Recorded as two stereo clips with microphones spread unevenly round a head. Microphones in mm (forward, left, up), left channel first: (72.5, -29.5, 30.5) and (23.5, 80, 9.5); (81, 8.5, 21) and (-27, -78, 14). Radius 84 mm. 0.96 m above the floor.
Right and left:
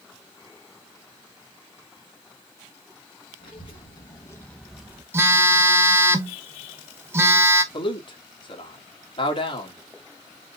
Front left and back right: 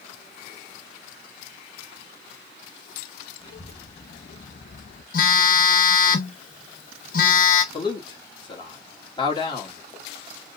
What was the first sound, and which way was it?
A child speaking, 15° right.